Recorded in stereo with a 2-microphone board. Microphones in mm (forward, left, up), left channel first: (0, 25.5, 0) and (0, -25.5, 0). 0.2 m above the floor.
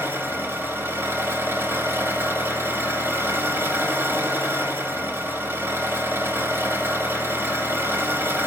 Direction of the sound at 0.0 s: 55° right (ahead or behind).